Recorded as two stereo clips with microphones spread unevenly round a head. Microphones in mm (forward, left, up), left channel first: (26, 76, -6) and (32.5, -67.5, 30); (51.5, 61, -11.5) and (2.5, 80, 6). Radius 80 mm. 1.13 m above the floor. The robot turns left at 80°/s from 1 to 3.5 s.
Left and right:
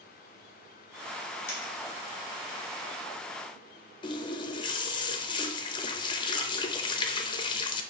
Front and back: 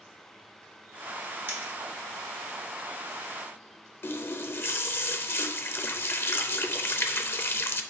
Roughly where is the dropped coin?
Behind left.